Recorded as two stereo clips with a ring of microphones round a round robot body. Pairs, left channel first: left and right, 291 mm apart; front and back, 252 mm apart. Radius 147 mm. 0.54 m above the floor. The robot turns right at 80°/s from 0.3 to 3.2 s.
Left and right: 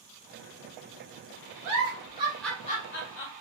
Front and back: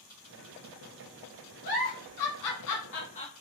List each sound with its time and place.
1.6 s a giggle: 60° right, 1.1 m; by 3.3 s 65° left, 1.1 m